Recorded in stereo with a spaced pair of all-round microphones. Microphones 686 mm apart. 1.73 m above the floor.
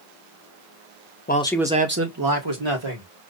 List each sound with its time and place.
1.3 s a man speaking: 15° left (ahead or behind), 0.8 m; by 3.1 s 50° right (ahead or behind), 1.4 m